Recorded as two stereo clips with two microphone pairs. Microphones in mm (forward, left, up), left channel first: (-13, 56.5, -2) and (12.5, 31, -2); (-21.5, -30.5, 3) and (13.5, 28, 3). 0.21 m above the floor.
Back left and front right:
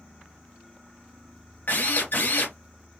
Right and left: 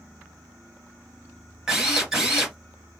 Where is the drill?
140° left, 2.5 m.